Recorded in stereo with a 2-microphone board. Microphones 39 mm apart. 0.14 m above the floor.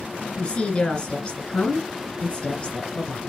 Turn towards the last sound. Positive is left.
turn(degrees=25)  # may be behind; listen again after turning